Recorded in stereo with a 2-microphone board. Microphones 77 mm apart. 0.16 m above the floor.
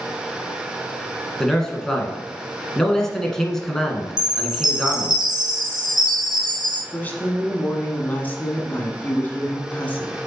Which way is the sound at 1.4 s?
5° left (ahead or behind).